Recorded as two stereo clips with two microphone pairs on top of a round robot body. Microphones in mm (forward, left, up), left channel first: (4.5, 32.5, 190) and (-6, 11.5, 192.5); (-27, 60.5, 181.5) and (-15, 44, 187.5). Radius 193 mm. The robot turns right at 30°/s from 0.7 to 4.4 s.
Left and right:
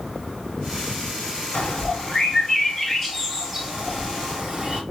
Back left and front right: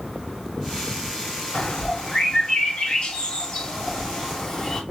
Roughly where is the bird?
Left.